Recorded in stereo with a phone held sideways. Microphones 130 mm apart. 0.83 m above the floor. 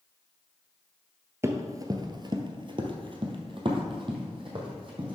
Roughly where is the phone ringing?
I don't hear a phone ringing.